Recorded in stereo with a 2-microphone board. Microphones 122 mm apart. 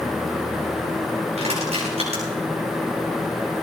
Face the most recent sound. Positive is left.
turn(degrees=-60)  # may be behind; listen again after turning